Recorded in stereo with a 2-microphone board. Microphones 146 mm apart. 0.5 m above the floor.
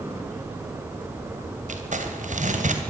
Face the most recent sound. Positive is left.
turn(degrees=-60)  # may be behind; listen again after turning